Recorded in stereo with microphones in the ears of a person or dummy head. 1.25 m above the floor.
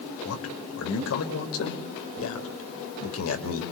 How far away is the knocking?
I don't hear knocking.